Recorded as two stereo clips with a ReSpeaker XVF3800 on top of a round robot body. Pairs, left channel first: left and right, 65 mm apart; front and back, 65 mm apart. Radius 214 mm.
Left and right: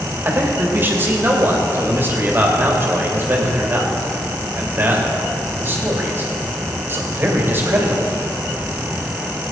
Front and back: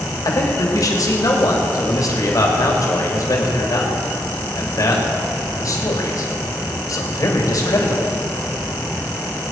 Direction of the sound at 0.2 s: 35° right.